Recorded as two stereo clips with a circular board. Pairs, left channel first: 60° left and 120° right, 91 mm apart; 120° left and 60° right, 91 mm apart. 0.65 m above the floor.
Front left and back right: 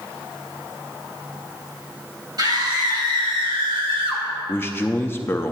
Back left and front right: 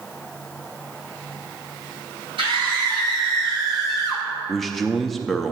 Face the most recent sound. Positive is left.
turn(degrees=35)